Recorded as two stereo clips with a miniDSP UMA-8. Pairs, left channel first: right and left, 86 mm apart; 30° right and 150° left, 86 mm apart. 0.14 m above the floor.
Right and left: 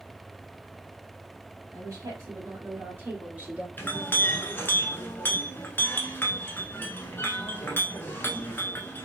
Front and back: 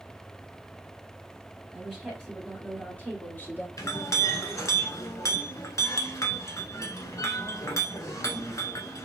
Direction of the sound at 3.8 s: 40° right.